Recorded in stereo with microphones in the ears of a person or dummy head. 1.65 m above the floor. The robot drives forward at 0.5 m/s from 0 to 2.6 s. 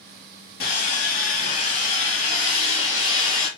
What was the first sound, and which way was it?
Sawing, 50° left (ahead or behind).